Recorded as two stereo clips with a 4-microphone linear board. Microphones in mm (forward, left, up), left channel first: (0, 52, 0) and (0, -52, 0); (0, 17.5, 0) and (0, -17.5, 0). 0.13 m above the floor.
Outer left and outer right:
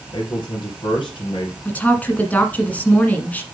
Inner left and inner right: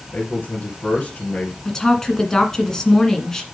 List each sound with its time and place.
0.1 s a man speaking: 50° left (ahead or behind), 3 m
1.6 s a woman speaking: 15° left (ahead or behind), 1.6 m